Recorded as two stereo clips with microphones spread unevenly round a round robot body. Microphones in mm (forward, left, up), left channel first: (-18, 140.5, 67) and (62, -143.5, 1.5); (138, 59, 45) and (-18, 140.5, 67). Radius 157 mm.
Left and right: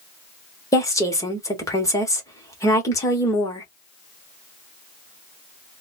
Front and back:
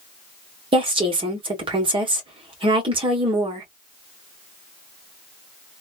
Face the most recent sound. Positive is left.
turn(degrees=-160)